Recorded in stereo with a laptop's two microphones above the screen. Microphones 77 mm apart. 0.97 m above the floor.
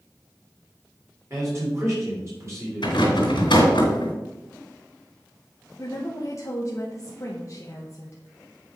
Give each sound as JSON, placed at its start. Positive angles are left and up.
{"t": 1.3, "sound": "a man speaking", "side_deg": -35, "distance_m": 3.5}
{"t": 2.8, "sound": "a rattle", "side_deg": 80, "distance_m": 2.5}
{"t": 5.8, "sound": "a woman speaking", "side_deg": 40, "distance_m": 1.0}